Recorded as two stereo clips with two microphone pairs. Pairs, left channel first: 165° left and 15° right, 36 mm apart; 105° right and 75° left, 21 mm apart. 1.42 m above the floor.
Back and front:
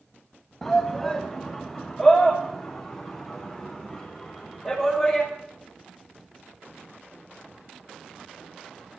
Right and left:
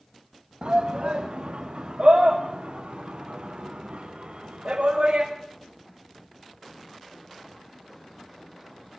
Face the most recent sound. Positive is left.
turn(degrees=70)